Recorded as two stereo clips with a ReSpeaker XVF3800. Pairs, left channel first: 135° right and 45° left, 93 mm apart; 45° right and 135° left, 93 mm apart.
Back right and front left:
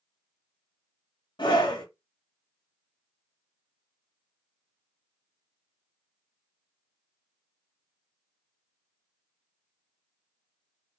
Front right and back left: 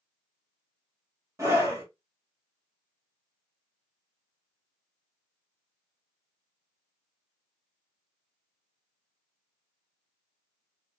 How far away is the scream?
About 1.7 m.